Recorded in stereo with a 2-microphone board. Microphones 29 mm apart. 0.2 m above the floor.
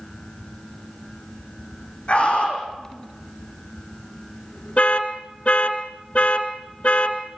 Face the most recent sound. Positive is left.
turn(degrees=50)  # may be behind; listen again after turning